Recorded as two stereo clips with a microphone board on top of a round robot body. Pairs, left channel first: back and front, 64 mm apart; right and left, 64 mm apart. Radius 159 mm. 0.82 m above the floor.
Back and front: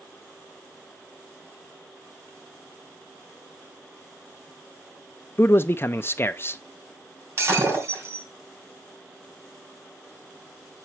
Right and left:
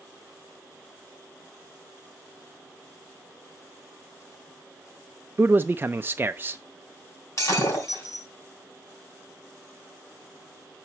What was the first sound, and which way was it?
A man speaking, 140° left.